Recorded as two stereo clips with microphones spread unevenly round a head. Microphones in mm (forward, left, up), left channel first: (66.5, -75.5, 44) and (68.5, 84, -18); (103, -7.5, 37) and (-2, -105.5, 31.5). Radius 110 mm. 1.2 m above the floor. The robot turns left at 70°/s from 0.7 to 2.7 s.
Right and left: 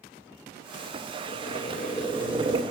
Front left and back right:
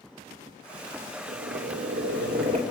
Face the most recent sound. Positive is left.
turn(degrees=155)